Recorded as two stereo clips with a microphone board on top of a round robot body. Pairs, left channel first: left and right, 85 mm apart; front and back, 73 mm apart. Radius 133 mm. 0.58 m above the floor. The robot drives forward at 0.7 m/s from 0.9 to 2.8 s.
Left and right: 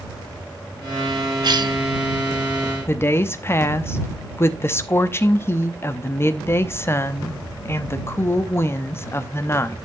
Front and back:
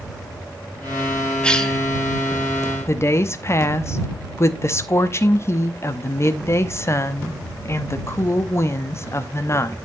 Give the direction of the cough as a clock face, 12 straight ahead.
2 o'clock.